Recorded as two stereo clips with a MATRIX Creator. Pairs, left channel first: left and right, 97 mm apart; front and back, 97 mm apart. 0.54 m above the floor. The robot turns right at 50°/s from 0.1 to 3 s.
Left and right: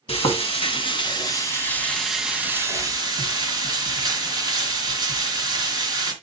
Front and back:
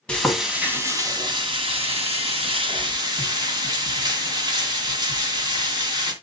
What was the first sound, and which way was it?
Frying, 80° left.